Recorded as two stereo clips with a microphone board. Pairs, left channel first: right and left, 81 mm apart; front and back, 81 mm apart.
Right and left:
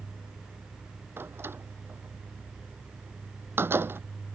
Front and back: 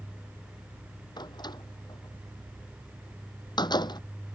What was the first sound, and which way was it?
A door slam, 30° left.